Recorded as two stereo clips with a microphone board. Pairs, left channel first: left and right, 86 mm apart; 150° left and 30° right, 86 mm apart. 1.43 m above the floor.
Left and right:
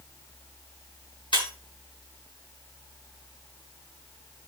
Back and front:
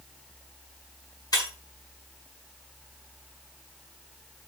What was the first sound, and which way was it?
Breaking glass, 105° left.